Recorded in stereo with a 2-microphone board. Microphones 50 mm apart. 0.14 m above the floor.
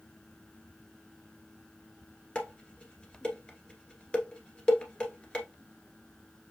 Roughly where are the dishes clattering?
Centre.